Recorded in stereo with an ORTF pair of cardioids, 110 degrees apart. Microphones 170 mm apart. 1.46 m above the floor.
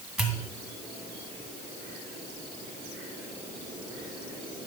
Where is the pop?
Straight ahead, 1.8 m.